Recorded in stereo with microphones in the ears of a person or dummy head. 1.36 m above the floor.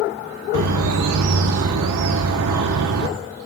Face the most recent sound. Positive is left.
turn(degrees=-75)  # may be behind; listen again after turning